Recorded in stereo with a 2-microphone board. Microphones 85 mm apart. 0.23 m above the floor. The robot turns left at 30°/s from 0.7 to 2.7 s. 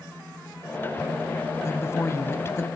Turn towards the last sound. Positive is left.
turn(degrees=65)